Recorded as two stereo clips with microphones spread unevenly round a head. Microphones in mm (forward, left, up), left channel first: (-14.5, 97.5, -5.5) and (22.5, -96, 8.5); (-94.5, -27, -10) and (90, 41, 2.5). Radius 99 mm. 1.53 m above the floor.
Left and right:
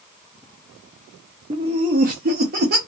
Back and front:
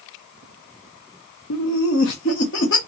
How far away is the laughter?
About 0.6 m.